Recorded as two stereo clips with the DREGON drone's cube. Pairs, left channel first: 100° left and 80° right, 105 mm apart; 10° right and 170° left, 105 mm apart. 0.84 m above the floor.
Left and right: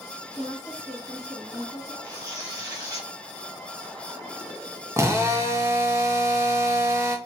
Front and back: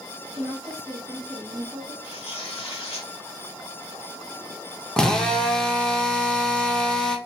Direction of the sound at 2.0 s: 30° right.